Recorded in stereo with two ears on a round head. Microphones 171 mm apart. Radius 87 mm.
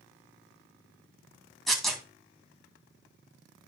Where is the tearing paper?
Centre (ahead or behind), 2.5 m.